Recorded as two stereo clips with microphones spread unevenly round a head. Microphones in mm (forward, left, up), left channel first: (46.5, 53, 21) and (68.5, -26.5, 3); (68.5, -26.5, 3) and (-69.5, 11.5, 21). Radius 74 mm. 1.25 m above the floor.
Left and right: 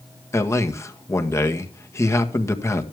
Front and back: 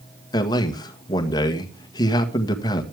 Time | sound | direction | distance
0.3 | a man speaking | 45° left | 1.7 m